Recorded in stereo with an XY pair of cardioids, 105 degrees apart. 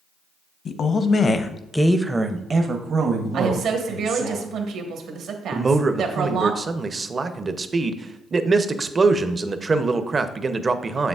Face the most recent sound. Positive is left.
turn(degrees=-30)